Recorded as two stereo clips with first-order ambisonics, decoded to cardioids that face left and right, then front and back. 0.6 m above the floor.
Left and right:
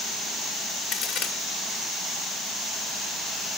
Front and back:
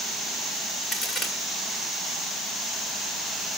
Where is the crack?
60° left, 1.8 m.